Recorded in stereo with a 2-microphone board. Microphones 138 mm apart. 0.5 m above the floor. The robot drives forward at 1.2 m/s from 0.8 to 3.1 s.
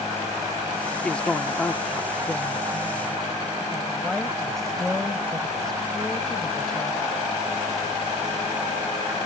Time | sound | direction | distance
1.0 | a woman speaking | 10° left (ahead or behind) | ?